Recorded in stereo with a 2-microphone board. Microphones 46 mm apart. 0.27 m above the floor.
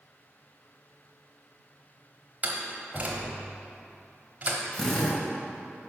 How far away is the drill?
About 1.4 m.